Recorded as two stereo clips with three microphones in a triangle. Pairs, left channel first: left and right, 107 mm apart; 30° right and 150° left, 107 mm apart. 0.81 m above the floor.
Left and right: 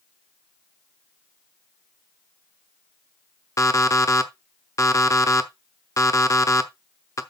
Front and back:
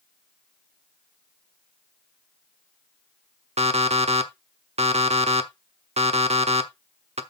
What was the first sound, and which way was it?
An alarm clock, 150° left.